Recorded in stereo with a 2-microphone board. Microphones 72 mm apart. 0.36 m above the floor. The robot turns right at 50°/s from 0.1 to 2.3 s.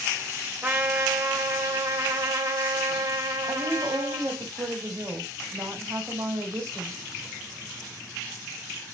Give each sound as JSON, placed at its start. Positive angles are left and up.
{"t": 0.6, "sound": "a trumpet", "azimuth_deg": -160, "distance_m": 1.1}
{"t": 3.5, "sound": "a woman speaking", "side_deg": -40, "distance_m": 1.7}